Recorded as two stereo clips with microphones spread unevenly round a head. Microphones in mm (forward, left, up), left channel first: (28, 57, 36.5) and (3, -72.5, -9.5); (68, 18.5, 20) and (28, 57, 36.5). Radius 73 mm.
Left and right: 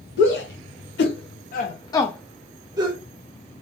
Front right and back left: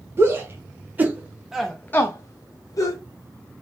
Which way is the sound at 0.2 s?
85° left.